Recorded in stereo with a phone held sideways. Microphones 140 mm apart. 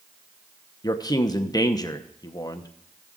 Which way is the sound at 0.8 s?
30° left (ahead or behind).